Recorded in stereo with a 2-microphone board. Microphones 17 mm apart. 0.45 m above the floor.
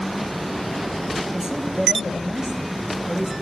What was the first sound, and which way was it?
A man speaking, 35° right (ahead or behind).